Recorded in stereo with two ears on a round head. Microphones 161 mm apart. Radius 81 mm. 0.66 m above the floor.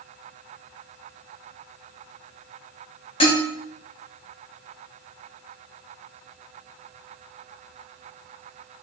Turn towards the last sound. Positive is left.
turn(degrees=30)  # may be behind; listen again after turning